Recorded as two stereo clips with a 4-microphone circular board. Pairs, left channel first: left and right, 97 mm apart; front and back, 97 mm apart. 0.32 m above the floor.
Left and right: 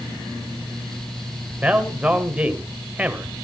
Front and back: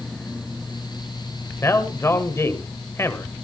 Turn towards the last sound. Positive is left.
turn(degrees=-25)